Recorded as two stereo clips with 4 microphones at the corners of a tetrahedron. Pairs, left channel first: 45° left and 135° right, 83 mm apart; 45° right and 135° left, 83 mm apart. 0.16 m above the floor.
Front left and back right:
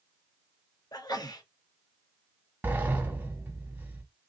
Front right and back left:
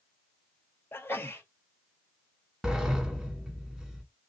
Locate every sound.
0.9 s a sneeze: 15° left, 2 m
2.6 s a sliding door: 150° right, 1.5 m